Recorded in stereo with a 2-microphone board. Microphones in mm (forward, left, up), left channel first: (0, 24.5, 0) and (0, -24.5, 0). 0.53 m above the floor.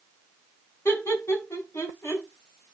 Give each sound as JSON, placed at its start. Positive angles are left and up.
{"t": 0.8, "sound": "laughter", "side_deg": 80, "distance_m": 4.5}